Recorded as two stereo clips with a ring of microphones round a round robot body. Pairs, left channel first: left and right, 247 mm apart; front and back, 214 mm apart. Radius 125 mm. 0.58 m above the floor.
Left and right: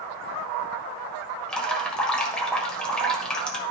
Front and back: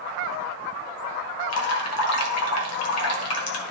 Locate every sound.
1.5 s dripping: 5° left, 1.5 m